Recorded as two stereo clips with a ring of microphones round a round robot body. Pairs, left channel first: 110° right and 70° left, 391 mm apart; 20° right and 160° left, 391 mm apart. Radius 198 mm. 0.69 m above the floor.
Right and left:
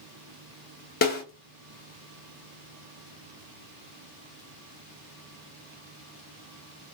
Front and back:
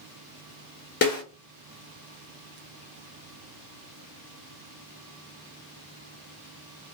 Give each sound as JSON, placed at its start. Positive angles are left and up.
{"t": 1.0, "sound": "a snare drum", "azimuth_deg": -65, "distance_m": 1.0}